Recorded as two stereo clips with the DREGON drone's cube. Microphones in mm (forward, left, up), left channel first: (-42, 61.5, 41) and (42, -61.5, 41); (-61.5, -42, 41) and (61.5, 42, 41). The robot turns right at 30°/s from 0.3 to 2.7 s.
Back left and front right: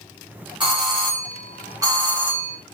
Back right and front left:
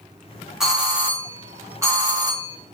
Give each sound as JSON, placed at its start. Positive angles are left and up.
{"t": 0.6, "sound": "a doorbell", "azimuth_deg": -50, "distance_m": 1.5}